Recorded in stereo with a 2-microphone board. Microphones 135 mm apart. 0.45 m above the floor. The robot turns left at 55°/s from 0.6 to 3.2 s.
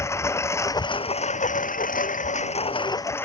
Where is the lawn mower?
160° left; by 3.3 s 15° left.